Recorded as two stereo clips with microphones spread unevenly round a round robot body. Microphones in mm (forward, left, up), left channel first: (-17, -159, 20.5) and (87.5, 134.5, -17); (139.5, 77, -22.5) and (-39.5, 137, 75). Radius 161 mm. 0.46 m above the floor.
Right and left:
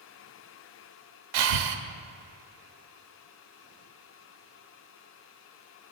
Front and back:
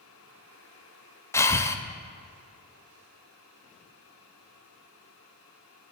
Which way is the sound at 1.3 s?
55° left.